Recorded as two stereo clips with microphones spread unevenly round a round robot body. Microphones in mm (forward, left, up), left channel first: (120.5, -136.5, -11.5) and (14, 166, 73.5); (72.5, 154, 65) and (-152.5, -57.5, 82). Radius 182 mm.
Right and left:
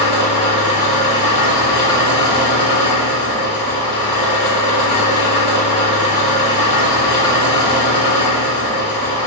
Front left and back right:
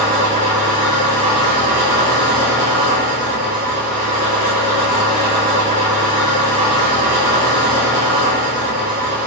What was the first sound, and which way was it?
An engine running, 60° right.